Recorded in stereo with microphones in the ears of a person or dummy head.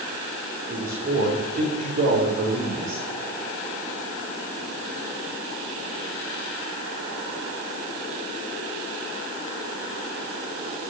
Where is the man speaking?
40° right (ahead or behind), 3 m.